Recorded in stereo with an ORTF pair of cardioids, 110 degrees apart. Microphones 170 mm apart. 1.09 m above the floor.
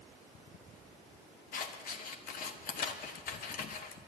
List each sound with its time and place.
1.5 s scissors: 55° left, 1.3 m